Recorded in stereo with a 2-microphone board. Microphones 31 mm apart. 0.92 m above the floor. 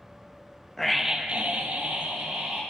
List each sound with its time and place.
0.8 s a scream: 10° left (ahead or behind), 0.9 m; by 2.6 s 80° right, 2.5 m